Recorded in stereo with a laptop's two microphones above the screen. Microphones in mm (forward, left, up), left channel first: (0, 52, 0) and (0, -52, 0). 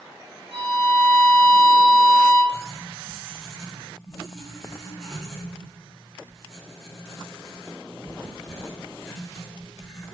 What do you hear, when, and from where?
0.5 s a violin: 60° right (ahead or behind), 0.8 m
2.5 s writing: centre (ahead or behind), 0.9 m